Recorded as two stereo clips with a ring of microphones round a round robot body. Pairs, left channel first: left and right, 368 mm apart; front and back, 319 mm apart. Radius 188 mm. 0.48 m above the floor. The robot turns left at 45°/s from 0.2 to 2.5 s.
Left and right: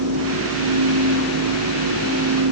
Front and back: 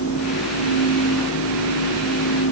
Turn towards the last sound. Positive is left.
No sound to turn to.